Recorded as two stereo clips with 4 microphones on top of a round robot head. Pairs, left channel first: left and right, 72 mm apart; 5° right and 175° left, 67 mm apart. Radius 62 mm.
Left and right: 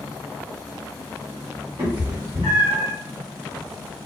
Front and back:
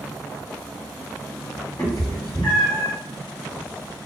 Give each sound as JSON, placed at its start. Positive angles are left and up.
{"t": 1.8, "sound": "a cat meowing", "azimuth_deg": -60, "distance_m": 1.0}